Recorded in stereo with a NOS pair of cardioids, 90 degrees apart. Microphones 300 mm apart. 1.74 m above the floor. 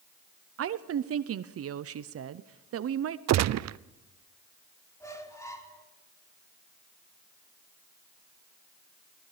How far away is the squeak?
About 3.5 m.